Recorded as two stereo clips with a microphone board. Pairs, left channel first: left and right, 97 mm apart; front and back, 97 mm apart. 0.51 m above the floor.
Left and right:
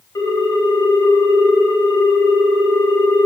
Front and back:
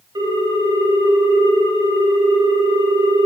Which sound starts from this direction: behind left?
A ringtone, at 0.1 s.